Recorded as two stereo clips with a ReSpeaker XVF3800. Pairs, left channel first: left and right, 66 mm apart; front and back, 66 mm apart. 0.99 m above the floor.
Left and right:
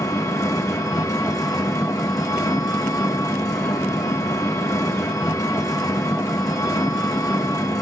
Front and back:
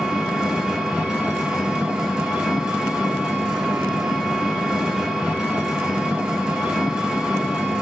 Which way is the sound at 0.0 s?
105° left.